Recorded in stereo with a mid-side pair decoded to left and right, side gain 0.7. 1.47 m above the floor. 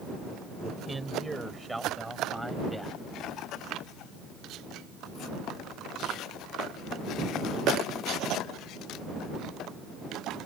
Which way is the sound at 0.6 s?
15° right.